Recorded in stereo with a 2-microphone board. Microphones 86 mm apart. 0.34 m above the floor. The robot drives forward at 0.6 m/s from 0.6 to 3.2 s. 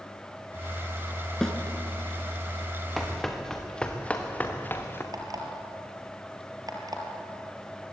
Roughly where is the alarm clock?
Right.